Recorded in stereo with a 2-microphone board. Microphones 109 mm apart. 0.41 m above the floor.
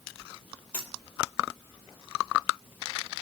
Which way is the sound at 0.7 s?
10° left (ahead or behind).